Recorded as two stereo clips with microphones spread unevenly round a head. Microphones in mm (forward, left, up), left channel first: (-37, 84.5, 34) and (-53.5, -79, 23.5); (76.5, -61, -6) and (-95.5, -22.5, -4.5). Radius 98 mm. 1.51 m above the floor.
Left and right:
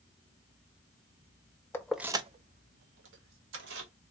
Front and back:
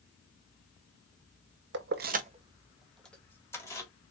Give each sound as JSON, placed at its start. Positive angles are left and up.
{"t": 1.7, "sound": "keys jangling", "azimuth_deg": 155, "distance_m": 0.8}